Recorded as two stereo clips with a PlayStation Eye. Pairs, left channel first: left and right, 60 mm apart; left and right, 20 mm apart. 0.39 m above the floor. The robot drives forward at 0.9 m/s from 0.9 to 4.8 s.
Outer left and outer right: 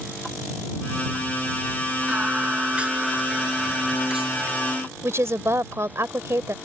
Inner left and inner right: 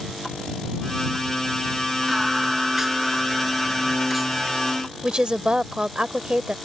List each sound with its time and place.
2.1 s singing: 20° right (ahead or behind); by 4.8 s 10° right (ahead or behind)
5.0 s a woman speaking: 50° right (ahead or behind)